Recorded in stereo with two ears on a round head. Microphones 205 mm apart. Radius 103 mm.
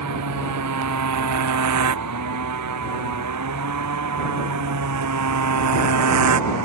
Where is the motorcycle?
85° right; by 6.7 s 80° right.